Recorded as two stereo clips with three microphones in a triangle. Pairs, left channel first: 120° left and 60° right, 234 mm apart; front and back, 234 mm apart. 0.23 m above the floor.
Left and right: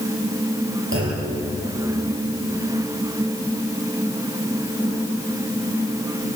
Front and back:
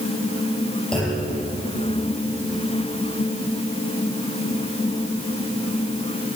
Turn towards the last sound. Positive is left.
turn(degrees=-85)